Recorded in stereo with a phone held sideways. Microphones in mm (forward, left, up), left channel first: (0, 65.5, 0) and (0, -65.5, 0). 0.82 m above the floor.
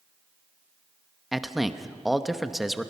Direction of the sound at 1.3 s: Centre (ahead or behind).